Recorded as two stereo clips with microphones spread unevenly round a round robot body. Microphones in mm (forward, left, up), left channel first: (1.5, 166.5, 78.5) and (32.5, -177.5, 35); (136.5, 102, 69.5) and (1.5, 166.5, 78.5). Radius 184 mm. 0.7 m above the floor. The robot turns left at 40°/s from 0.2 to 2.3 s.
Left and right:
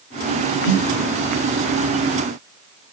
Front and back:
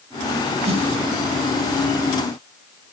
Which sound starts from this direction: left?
A snare drum, at 0.7 s.